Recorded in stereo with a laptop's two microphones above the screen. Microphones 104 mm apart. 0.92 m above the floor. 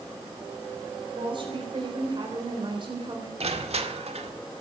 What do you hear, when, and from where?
1.1 s a woman speaking: 50° right (ahead or behind), 3.5 m
3.4 s crushing: 80° right, 1.7 m